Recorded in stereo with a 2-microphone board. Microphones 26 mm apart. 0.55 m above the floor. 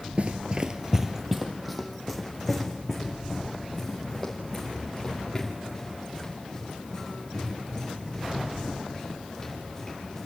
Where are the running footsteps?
45° right (ahead or behind), 0.6 m; by 10.2 s 15° left (ahead or behind), 9.5 m.